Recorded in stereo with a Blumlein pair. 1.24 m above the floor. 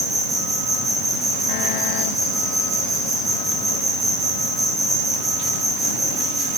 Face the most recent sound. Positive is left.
turn(degrees=-10)